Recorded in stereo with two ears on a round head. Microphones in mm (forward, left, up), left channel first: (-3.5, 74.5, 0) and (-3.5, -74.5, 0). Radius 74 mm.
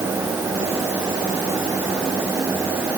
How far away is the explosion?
No explosion in this recording.